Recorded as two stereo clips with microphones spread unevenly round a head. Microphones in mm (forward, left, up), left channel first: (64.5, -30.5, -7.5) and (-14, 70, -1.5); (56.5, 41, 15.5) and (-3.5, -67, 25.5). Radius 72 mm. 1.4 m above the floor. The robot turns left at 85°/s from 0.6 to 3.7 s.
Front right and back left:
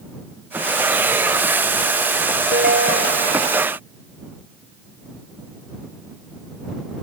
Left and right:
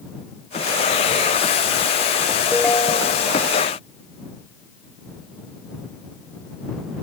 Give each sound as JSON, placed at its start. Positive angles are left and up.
{"t": 2.5, "sound": "a ringtone", "azimuth_deg": 150}